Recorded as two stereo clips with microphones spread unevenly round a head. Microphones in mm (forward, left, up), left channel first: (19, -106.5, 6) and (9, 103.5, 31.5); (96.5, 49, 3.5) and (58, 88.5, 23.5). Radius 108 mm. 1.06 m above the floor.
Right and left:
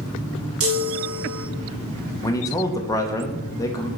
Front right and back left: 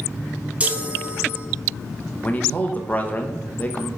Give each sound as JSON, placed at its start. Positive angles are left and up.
{"t": 0.6, "sound": "a chime", "azimuth_deg": 70, "distance_m": 1.0}
{"t": 2.2, "sound": "a man speaking", "azimuth_deg": -20, "distance_m": 0.9}